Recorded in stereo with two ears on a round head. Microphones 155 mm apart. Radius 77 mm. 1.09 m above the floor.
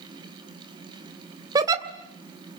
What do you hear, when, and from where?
1.6 s a giggle: 20° right (ahead or behind), 1.9 m